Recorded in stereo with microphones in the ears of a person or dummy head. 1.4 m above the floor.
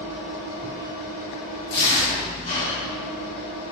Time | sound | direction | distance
0.0 | an engine running | 45° left (ahead or behind) | 1.5 m
1.7 | tearing paper | 40° left (ahead or behind) | 1.3 m